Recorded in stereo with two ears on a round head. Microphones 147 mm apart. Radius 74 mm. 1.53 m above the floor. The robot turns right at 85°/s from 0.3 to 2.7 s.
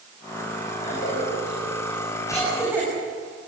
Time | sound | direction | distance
0.8 | a cough | 35° left (ahead or behind) | 7.5 m